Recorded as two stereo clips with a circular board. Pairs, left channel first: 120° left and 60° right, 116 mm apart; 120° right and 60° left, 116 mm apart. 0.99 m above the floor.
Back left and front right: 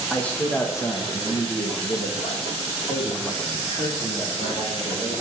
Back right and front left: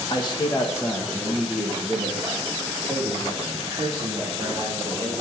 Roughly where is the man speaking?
Behind right.